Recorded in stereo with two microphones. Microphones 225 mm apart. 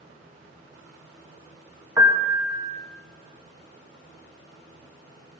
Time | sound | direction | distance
2.0 | a piano | 10° right (ahead or behind) | 1.1 m